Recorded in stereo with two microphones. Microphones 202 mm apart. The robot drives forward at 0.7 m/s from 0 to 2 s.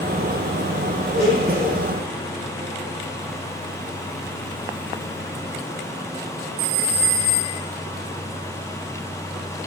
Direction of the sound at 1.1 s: 55° right (ahead or behind).